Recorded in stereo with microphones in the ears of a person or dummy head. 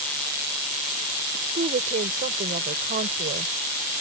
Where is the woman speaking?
35° right (ahead or behind); by 3.5 s 40° right (ahead or behind).